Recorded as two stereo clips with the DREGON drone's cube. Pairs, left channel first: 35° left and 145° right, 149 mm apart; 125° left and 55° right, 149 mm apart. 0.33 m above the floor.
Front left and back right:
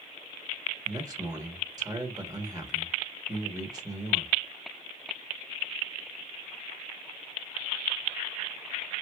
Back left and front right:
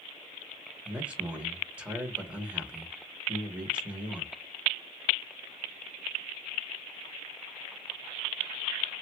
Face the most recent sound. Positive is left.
turn(degrees=-125)